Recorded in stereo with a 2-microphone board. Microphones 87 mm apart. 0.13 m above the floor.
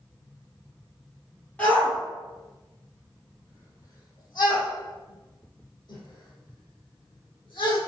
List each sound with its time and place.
1.6 s a shout: 15° left (ahead or behind), 2.5 m; by 7.8 s 65° left (ahead or behind), 5 m